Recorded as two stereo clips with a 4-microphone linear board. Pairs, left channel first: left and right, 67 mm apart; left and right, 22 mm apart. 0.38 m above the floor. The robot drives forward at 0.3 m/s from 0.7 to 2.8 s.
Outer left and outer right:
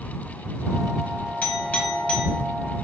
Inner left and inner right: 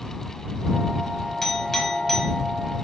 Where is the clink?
20° left (ahead or behind), 1.6 m.